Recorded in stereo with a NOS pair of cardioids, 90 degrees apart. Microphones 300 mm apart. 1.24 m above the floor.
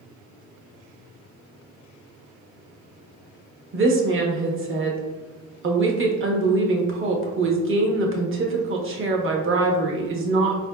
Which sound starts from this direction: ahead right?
A woman speaking, at 3.7 s.